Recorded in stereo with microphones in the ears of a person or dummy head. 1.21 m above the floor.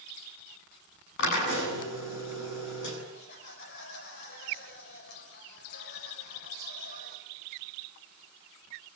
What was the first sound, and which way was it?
A drill, 65° left (ahead or behind).